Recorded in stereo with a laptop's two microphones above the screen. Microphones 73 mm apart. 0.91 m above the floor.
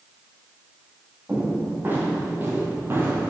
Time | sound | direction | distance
1.3 | footsteps | 25° right (ahead or behind) | 2 m